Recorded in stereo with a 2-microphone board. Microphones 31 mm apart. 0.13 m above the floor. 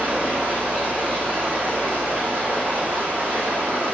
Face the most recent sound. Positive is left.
turn(degrees=-65)  # may be behind; listen again after turning